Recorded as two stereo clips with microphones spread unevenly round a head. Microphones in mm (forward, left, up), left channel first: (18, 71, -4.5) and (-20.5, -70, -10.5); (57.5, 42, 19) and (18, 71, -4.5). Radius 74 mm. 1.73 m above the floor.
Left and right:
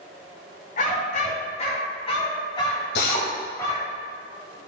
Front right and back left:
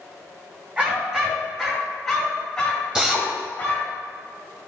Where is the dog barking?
60° left, 2.5 m; by 4.0 s straight ahead, 3.5 m.